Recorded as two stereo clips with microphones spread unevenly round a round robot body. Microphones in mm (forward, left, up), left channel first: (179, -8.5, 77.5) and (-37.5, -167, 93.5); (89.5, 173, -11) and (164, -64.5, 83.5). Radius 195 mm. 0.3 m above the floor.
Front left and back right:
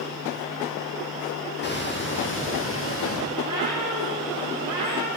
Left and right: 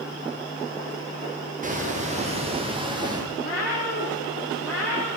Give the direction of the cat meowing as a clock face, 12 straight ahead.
7 o'clock.